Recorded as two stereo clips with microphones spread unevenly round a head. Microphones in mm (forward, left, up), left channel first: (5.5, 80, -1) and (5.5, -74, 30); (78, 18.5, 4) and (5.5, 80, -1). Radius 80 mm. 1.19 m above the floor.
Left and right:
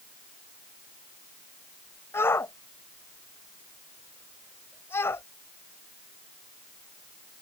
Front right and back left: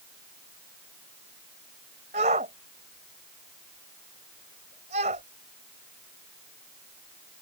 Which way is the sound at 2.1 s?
165° left.